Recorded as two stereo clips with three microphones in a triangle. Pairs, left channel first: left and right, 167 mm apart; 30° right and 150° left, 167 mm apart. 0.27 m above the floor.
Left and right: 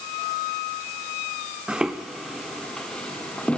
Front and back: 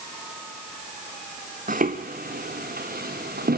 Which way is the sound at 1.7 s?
175° right.